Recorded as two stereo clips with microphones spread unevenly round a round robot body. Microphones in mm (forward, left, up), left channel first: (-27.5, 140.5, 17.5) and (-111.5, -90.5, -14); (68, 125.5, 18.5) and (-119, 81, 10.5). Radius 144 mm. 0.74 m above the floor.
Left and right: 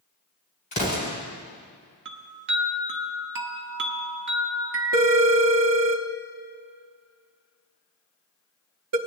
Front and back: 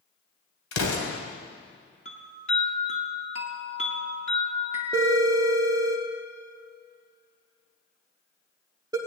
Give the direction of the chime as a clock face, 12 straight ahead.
2 o'clock.